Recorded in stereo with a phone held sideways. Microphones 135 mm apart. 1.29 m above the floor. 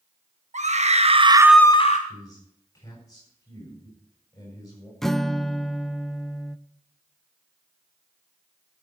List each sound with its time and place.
0.5 s a scream: 60° right (ahead or behind), 1.7 m; by 2.0 s 55° left (ahead or behind), 0.8 m
2.1 s a man speaking: 25° left (ahead or behind), 7 m
5.0 s a guitar: 5° left (ahead or behind), 0.5 m